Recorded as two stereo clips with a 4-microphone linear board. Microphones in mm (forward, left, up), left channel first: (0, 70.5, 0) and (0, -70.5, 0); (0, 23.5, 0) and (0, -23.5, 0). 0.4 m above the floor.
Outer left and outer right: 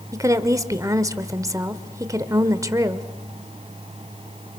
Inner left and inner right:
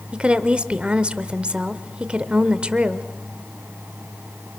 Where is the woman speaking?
25° right (ahead or behind), 1.3 m.